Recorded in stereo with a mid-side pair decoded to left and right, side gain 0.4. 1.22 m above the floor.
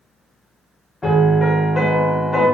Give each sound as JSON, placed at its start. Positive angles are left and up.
{"t": 1.0, "sound": "a piano", "azimuth_deg": 30, "distance_m": 1.0}